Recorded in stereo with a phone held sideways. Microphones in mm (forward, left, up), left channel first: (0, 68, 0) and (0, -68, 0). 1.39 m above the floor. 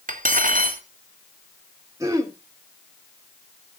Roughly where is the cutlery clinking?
Right.